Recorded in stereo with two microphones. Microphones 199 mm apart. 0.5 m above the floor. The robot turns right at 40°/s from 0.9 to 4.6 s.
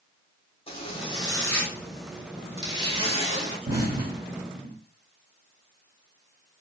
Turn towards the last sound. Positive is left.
turn(degrees=-40)  # may be behind; listen again after turning